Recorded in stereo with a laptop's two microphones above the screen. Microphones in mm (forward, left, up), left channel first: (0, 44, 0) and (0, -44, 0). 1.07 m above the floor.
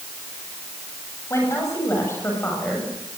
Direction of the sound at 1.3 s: 35° left (ahead or behind).